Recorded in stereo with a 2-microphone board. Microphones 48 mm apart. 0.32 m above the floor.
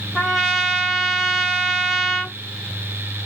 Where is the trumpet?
5° left (ahead or behind), 1.0 m.